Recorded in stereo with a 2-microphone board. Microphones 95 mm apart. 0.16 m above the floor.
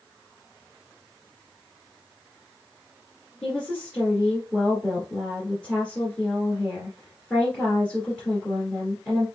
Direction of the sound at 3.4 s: 10° left (ahead or behind).